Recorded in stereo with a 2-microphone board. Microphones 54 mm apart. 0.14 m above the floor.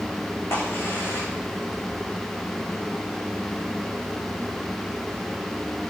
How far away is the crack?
About 8 m.